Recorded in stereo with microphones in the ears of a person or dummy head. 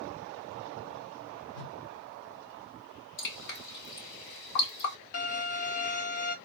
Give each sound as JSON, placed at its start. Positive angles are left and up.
{"t": 1.5, "sound": "a whoosh", "side_deg": 90, "distance_m": 1.7}
{"t": 3.2, "sound": "dripping", "side_deg": 65, "distance_m": 2.5}
{"t": 5.1, "sound": "a violin", "side_deg": 45, "distance_m": 1.2}